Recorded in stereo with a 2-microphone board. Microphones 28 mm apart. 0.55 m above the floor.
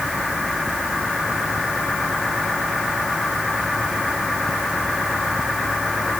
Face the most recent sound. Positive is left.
No sound to turn to.